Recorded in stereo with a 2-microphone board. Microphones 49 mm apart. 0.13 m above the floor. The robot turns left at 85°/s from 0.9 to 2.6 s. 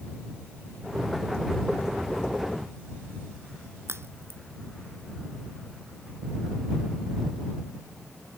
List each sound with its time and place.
3.9 s a crack: 65° right (ahead or behind)